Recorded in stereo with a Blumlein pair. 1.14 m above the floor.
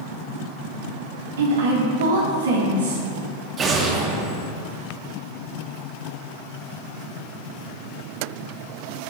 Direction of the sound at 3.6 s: 25° right.